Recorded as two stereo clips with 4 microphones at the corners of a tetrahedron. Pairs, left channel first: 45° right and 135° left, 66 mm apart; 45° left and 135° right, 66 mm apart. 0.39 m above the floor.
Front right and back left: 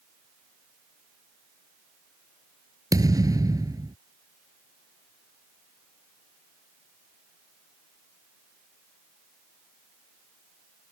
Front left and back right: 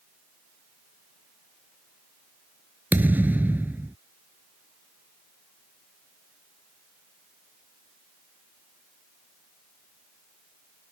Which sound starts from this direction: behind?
A thud, at 2.9 s.